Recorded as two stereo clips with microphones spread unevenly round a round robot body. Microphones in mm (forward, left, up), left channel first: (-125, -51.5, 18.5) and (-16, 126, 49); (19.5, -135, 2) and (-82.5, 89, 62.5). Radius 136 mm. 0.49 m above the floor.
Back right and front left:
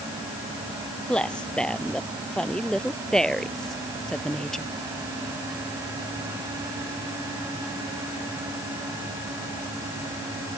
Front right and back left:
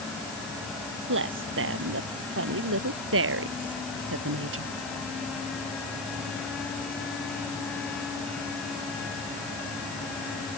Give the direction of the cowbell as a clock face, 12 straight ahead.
No cowbell in this recording.